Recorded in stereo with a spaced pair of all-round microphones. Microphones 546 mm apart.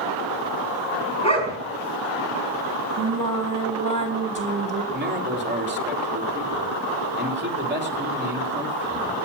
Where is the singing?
35° right (ahead or behind), 2.5 m.